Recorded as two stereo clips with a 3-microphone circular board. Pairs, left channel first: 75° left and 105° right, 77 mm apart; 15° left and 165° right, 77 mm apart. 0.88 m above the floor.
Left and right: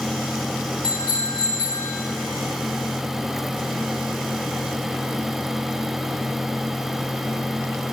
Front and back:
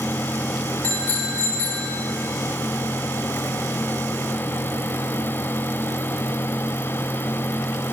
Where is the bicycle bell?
85° left, 9.5 m.